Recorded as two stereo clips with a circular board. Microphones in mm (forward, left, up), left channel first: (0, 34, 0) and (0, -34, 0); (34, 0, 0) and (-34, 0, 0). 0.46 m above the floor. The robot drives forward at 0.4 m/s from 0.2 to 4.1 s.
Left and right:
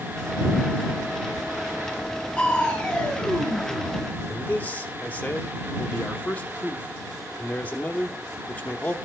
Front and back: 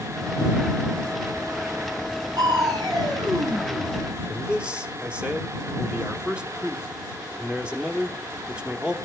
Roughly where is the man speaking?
Behind left.